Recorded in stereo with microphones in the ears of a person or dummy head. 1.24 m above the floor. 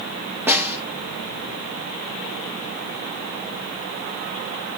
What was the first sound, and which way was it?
A snare drum, 10° right (ahead or behind).